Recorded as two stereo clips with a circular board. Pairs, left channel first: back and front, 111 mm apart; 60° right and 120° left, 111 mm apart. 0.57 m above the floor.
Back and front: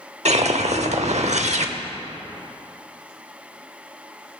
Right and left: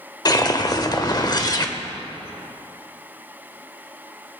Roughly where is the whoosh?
Ahead.